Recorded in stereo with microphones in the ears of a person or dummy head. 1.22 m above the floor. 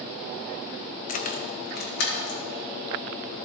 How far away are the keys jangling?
About 0.6 m.